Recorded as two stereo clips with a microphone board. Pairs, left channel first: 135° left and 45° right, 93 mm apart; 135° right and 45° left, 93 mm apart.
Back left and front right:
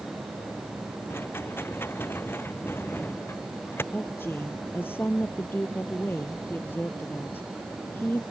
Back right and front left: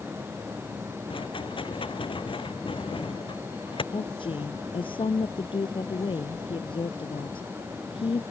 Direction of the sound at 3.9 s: 160° right.